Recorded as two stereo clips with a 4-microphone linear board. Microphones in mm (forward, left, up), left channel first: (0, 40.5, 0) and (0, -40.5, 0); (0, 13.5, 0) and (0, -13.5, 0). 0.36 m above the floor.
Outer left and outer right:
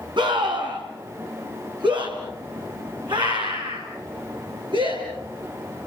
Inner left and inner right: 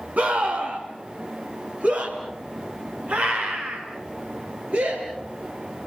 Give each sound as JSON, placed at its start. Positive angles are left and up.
{"t": 0.2, "sound": "a scream", "side_deg": -70, "distance_m": 3.0}